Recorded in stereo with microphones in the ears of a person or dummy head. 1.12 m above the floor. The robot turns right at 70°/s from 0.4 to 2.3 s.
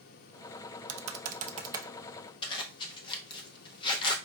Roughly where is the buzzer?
No buzzer in this recording.